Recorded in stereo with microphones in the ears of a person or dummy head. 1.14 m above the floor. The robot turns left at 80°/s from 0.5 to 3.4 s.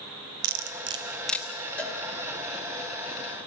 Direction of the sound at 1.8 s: 5° left (ahead or behind).